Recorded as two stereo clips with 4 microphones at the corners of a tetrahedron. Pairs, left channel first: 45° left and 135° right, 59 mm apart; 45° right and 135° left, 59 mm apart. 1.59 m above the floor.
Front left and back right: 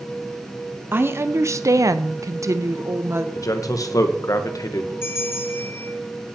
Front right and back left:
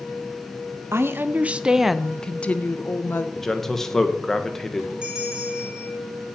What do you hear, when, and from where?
0.9 s a woman speaking: 175° left, 0.8 m; by 3.2 s 90° right, 1.1 m
3.4 s a man speaking: 40° left, 1.3 m
5.0 s a bell: 65° left, 1.9 m